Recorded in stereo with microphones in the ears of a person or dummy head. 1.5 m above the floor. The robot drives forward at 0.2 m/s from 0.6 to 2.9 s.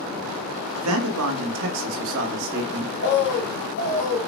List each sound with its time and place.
0.8 s a man speaking: 80° right, 1.1 m; by 2.9 s 60° right (ahead or behind), 1.2 m
3.0 s a bird: 40° left (ahead or behind), 0.9 m